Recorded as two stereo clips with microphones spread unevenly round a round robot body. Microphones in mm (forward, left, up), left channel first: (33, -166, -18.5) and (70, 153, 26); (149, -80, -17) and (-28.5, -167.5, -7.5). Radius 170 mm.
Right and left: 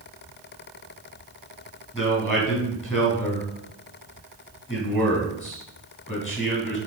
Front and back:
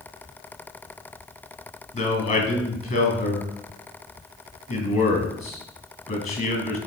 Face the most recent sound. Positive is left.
turn(degrees=-10)